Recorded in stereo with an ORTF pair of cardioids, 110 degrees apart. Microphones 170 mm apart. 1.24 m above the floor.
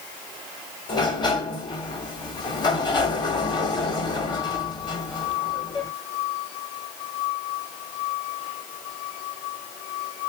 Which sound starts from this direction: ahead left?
A sliding door, at 0.9 s.